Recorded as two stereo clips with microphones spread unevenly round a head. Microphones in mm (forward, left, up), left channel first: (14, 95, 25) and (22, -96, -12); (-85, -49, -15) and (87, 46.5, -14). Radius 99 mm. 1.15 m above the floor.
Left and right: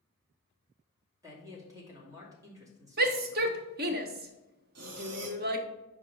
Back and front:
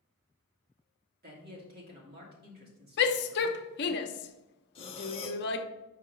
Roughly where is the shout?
Behind right.